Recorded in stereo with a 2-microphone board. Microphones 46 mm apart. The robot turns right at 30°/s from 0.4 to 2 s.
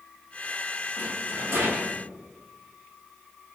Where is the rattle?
140° right, 0.9 m; by 2.0 s 110° right, 0.9 m.